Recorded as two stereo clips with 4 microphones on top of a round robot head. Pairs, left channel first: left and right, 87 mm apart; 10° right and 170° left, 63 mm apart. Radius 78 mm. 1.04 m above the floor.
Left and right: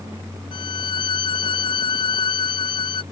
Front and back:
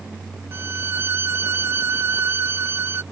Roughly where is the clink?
I don't hear a clink.